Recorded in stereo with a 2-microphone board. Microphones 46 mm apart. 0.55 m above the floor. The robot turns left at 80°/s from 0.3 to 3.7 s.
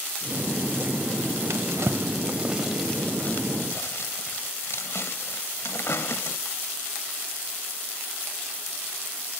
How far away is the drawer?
About 0.6 m.